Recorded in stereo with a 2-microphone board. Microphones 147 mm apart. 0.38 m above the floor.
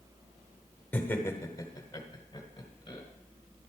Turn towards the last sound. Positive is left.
turn(degrees=30)  # may be behind; listen again after turning